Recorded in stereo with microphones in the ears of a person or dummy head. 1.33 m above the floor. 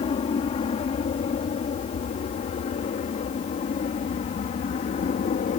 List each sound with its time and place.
0.0 s an aircraft: 30° left (ahead or behind); by 5.6 s 40° left (ahead or behind)